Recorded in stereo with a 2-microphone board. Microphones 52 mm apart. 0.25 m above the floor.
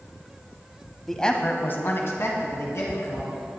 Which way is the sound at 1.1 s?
5° left (ahead or behind).